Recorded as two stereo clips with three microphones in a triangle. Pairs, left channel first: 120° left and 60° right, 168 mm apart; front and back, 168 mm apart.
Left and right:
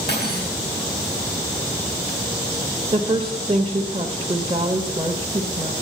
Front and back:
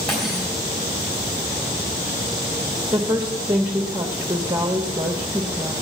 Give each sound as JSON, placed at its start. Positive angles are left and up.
{"t": 0.1, "sound": "cutlery clinking", "azimuth_deg": 90, "distance_m": 4.0}
{"t": 2.9, "sound": "a woman speaking", "azimuth_deg": -115, "distance_m": 0.9}